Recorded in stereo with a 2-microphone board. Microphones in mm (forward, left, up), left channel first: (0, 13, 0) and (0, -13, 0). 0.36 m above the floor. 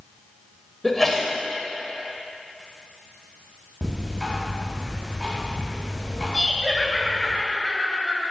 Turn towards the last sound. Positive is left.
turn(degrees=15)  # may be behind; listen again after turning